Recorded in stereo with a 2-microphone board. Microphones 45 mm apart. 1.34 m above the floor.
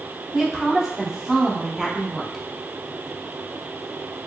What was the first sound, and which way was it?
A woman speaking, 5° right (ahead or behind).